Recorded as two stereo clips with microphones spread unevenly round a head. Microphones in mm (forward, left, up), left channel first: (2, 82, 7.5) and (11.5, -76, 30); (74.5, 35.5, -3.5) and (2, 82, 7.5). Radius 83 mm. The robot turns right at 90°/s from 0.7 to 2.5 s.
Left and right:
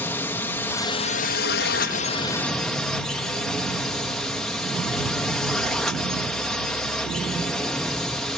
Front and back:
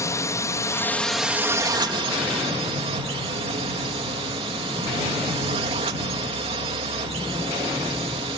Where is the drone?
15° left; by 8.4 s straight behind.